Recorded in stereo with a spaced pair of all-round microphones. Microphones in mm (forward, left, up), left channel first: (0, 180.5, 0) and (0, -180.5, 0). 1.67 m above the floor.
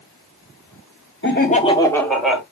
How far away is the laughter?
About 0.7 m.